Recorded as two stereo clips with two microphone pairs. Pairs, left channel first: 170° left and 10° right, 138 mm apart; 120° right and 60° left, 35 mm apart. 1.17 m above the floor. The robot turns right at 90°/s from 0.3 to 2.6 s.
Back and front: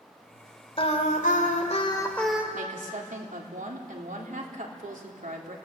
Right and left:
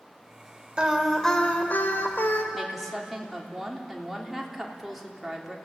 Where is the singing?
125° left, 2 m; by 2.4 s 85° right, 2 m.